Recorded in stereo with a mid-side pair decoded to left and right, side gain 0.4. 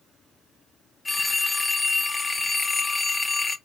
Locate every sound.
1.1 s a phone ringing: 20° left, 1.2 m